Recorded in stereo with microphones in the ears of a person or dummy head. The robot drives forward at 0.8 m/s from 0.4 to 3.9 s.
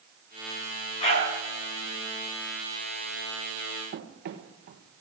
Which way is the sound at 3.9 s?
45° right (ahead or behind).